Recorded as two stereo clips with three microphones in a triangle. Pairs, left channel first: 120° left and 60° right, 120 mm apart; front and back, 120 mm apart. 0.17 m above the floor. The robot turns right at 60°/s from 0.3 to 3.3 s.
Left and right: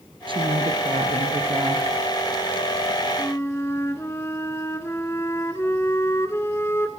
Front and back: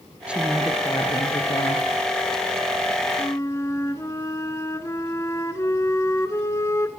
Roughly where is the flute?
Ahead left.